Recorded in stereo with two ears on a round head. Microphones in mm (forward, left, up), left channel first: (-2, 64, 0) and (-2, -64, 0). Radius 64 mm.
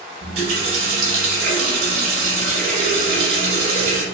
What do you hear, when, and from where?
0.2 s a running tap: 70° right (ahead or behind), 1.6 m